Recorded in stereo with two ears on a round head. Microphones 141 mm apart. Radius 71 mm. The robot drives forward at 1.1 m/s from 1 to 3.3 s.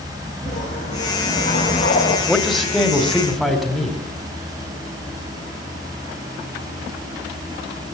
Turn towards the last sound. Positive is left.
turn(degrees=0)  # may be behind; listen again after turning